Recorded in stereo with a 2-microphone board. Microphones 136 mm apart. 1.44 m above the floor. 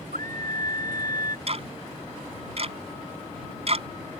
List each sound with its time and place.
0.1 s a scream: 85° right
1.5 s ticking: 50° right (ahead or behind)